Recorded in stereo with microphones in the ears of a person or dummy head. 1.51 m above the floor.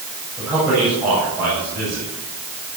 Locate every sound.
0.4 s a man speaking: 5° right (ahead or behind), 9.5 m